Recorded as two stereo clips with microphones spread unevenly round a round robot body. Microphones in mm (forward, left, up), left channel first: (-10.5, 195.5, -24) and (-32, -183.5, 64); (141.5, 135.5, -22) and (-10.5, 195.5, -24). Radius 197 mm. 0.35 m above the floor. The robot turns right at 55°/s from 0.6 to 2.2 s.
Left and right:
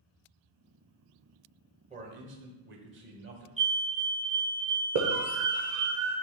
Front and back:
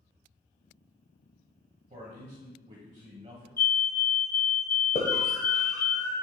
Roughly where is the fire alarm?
Ahead.